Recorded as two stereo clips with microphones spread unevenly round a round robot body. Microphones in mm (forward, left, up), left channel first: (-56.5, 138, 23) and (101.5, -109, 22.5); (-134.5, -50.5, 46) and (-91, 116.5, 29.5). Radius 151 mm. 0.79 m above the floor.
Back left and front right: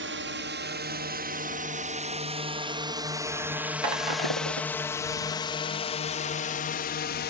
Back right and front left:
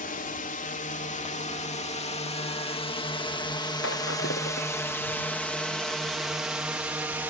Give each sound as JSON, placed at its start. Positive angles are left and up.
{"t": 0.0, "sound": "a drone", "azimuth_deg": -90}
{"t": 3.8, "sound": "breaking glass", "azimuth_deg": -60}